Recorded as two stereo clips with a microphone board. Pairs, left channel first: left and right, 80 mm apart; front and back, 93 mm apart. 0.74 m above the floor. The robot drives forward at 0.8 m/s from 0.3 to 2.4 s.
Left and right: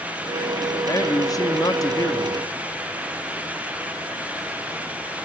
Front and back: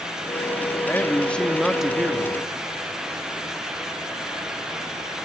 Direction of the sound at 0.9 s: 60° left.